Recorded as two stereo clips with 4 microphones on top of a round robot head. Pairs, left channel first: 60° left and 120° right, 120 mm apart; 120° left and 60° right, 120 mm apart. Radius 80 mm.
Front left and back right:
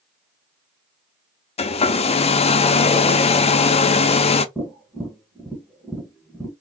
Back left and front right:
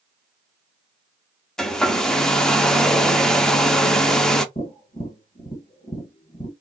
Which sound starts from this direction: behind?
Tapping, at 4.5 s.